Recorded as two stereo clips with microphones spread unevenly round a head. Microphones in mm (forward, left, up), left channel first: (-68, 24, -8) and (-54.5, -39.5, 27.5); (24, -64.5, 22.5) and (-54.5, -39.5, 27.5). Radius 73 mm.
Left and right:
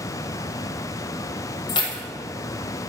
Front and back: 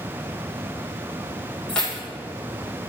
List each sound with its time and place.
1.7 s keys jangling: 65° left, 1.0 m